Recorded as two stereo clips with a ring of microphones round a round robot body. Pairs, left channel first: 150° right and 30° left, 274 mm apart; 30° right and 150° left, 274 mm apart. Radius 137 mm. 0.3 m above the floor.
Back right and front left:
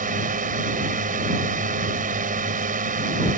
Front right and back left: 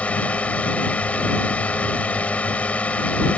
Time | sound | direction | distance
0.0 | a drone | 50° left | ?